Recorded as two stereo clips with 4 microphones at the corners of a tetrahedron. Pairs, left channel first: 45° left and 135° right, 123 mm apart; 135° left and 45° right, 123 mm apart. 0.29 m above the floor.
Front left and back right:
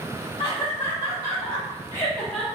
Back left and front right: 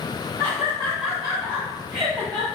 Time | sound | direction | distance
0.4 | laughter | 70° left | 1.2 m